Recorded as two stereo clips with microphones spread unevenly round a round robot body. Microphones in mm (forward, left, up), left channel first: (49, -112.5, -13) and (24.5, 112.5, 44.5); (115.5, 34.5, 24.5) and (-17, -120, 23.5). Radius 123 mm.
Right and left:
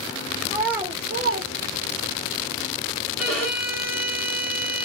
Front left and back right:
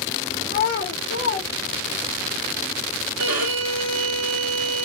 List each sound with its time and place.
0.5 s a child speaking: 5° left, 0.8 m; by 2.2 s 105° left, 0.6 m
3.2 s a violin: 175° right, 1.0 m